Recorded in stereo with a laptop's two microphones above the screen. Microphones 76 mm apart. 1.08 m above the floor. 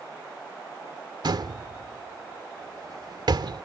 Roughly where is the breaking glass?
I don't hear breaking glass.